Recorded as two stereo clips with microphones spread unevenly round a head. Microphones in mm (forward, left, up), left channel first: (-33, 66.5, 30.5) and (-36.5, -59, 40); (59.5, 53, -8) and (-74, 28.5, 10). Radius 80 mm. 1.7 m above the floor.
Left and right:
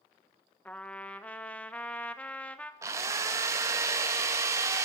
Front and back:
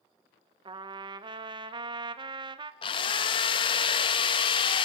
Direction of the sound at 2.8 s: 35° right.